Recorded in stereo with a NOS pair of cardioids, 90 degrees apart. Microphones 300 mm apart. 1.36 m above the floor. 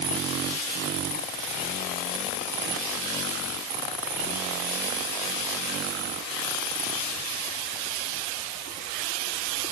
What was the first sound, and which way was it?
Only background noise.